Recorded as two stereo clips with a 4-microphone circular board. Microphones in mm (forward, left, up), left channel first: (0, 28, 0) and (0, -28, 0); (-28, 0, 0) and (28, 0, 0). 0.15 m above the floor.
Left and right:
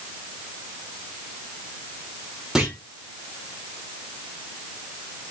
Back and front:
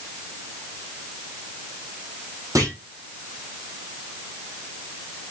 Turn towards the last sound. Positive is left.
turn(degrees=-10)